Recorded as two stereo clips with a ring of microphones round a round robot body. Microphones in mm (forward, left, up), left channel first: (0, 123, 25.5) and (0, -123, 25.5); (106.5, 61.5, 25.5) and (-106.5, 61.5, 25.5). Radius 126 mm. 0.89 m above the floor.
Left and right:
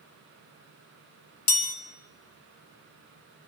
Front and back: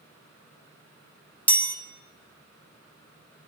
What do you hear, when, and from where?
1.5 s a chime: 80° left, 1.5 m